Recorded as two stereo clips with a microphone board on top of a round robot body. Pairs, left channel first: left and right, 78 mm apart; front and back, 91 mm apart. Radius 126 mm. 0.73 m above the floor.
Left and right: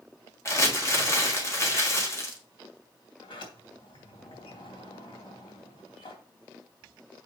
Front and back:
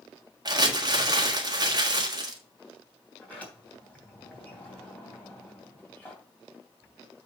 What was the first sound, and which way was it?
Crumpling, 140° left.